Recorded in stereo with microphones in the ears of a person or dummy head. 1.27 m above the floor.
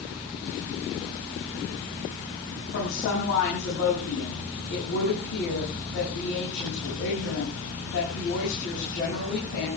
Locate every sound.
2.7 s a woman speaking: 80° left, 7.5 m